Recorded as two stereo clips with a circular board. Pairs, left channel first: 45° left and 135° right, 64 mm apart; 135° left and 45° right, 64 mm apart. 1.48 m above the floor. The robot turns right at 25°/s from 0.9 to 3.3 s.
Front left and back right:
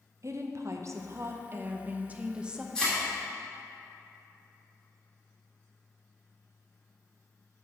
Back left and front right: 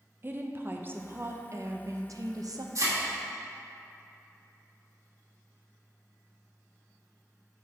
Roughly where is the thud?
Ahead right.